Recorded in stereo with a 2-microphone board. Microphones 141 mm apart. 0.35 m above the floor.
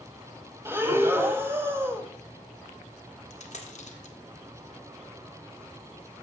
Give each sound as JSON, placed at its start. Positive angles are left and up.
{"t": 0.7, "sound": "breathing", "side_deg": -15, "distance_m": 1.0}
{"t": 3.3, "sound": "a dropped coin", "side_deg": 55, "distance_m": 1.4}